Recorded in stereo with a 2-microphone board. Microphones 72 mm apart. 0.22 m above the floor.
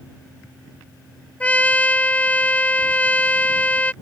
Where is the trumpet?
20° left (ahead or behind).